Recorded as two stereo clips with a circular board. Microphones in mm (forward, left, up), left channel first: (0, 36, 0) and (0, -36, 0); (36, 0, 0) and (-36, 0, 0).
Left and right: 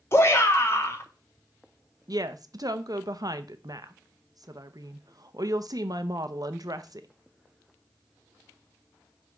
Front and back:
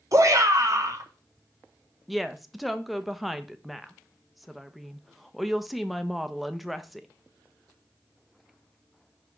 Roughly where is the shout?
Behind left.